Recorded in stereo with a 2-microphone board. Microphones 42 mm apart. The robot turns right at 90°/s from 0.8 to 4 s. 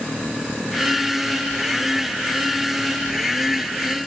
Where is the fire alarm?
No fire alarm in this recording.